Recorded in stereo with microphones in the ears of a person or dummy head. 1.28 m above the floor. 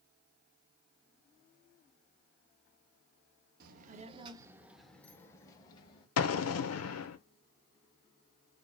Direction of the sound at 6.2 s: 80° left.